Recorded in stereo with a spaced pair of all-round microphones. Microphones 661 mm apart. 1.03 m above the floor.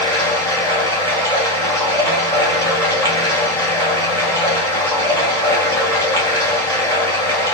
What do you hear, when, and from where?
0.0 s running water: 5° left (ahead or behind), 1.7 m